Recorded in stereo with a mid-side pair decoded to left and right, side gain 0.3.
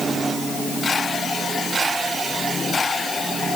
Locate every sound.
Only background noise.